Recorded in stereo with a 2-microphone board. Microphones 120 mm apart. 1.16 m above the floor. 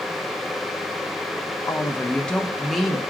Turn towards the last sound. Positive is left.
turn(degrees=-5)  # may be behind; listen again after turning